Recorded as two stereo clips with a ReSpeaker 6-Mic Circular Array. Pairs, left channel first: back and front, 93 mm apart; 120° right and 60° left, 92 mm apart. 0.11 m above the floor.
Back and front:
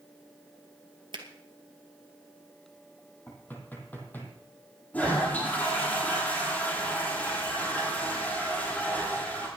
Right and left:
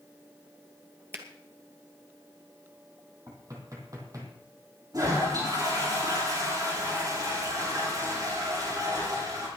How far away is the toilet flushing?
About 8 m.